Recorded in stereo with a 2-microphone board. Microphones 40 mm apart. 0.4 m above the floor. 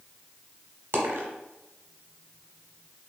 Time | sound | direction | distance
0.9 | a dropped coin | 75° right (ahead or behind) | 0.7 m